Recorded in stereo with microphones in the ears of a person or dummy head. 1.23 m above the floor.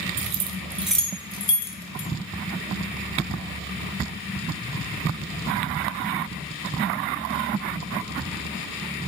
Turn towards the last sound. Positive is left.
turn(degrees=35)  # may be behind; listen again after turning